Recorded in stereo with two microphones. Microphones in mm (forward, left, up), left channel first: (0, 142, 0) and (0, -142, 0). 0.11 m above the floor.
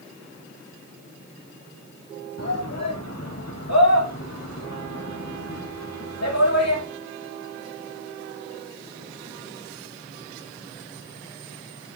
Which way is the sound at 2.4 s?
60° left (ahead or behind).